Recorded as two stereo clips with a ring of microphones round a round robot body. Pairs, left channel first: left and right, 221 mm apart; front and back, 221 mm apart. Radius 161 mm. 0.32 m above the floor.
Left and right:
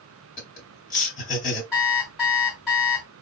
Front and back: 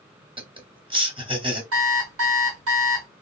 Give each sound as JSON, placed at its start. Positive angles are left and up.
{"t": 0.4, "sound": "laughter", "azimuth_deg": 125, "distance_m": 1.6}
{"t": 1.7, "sound": "an alarm clock", "azimuth_deg": 180, "distance_m": 1.4}